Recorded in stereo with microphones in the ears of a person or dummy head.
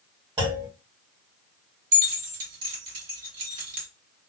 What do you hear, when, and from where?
0.4 s a clunk: 25° right (ahead or behind), 1.3 m
1.9 s keys jangling: 40° right (ahead or behind), 1.8 m